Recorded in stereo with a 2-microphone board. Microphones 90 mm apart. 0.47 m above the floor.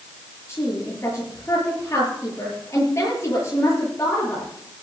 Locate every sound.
0.5 s a woman speaking: 35° left (ahead or behind), 9 m